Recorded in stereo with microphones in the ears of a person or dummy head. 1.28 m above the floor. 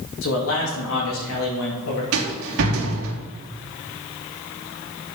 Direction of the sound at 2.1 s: 80° right.